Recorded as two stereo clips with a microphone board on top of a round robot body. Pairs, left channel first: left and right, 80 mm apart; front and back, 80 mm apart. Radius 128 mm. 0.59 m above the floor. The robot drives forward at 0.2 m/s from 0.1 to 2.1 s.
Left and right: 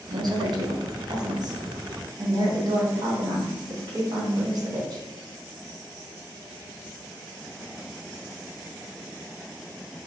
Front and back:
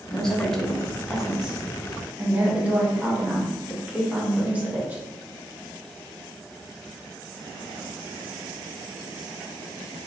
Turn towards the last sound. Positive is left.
turn(degrees=-110)